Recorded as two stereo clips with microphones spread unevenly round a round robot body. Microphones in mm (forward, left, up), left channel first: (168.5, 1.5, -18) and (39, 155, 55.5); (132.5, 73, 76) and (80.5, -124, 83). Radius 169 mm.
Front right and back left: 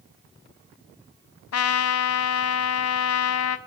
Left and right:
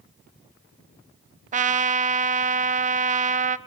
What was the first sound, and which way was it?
A trumpet, 55° right.